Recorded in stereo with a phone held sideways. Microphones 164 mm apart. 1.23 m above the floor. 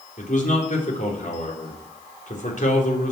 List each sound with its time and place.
0.2 s a man speaking: 55° left (ahead or behind), 3.5 m